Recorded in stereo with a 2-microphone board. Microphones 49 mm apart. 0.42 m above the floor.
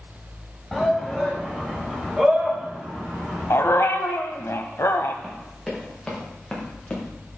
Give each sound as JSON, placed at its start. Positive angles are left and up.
{"t": 0.7, "sound": "a shout", "side_deg": 0, "distance_m": 2.5}
{"t": 3.5, "sound": "a dog barking", "side_deg": 70, "distance_m": 0.8}
{"t": 5.2, "sound": "running footsteps", "side_deg": 10, "distance_m": 5.5}